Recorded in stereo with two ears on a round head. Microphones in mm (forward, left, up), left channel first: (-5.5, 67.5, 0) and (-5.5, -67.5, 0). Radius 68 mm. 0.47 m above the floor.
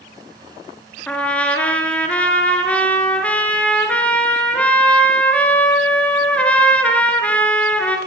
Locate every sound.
1.1 s a trumpet: 10° left (ahead or behind), 4 m